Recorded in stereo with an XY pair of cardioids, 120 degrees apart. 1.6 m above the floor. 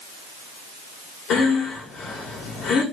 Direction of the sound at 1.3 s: 60° left.